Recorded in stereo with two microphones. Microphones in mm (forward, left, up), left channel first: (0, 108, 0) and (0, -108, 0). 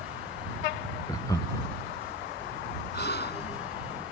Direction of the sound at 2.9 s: 50° left (ahead or behind).